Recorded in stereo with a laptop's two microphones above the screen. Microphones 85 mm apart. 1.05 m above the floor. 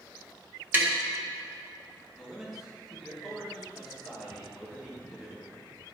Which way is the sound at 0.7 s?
25° right (ahead or behind).